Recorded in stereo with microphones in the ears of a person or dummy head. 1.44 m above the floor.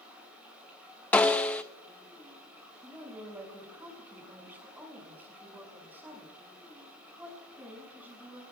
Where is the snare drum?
10° left (ahead or behind), 0.6 m.